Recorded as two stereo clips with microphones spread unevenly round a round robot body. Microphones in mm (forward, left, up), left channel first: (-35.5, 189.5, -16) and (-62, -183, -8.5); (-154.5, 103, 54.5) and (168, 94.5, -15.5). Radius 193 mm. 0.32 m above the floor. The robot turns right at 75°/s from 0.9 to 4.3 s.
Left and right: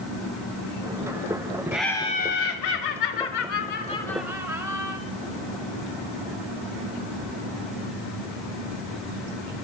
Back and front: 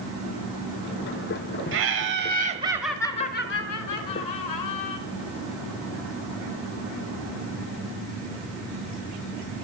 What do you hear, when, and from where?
1.7 s laughter: 10° right, 1.2 m; by 5.0 s 175° right, 1.2 m